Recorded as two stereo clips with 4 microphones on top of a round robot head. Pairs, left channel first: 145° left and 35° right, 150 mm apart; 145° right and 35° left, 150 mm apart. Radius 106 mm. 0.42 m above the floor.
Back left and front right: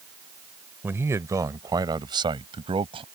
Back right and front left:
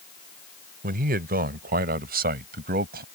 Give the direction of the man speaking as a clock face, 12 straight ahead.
11 o'clock.